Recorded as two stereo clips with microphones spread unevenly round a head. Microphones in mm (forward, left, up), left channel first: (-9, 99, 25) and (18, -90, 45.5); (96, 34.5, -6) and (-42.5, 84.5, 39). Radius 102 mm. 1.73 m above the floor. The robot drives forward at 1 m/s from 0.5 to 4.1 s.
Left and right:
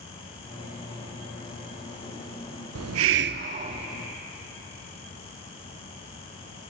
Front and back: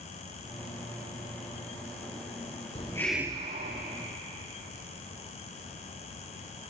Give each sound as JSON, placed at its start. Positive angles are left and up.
{"t": 2.8, "sound": "a hiss", "azimuth_deg": -75, "distance_m": 0.6}